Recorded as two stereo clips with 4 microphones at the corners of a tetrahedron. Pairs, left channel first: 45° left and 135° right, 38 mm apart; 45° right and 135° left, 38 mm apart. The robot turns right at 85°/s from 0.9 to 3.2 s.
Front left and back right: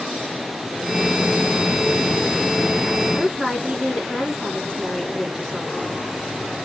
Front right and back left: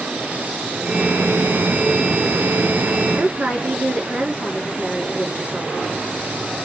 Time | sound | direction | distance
3.1 | a woman speaking | 145° left | 2 m